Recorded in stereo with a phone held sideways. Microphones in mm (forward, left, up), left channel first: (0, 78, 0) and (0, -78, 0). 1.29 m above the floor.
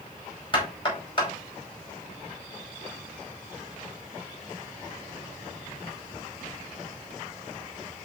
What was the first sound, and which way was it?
Knocking, 35° left (ahead or behind).